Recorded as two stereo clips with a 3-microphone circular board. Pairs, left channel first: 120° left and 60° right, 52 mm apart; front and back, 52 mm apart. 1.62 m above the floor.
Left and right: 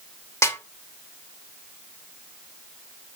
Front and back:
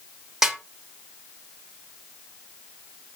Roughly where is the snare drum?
Left.